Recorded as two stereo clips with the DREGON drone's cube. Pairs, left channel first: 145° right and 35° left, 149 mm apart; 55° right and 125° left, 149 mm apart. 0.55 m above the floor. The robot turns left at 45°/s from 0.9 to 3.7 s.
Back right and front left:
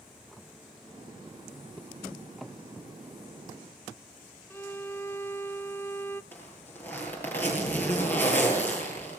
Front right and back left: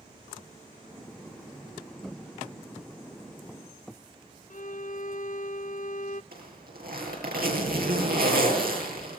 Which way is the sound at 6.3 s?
135° left.